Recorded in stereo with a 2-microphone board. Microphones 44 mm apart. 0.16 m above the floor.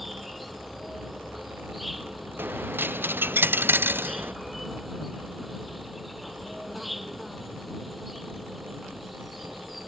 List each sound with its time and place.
0.0 s an insect: centre (ahead or behind)
2.4 s a dropped coin: 55° right (ahead or behind)